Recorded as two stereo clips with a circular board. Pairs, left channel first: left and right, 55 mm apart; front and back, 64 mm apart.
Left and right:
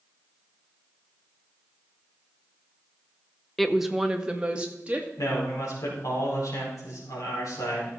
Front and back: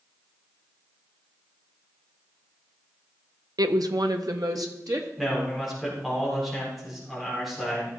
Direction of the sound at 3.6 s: 175° left.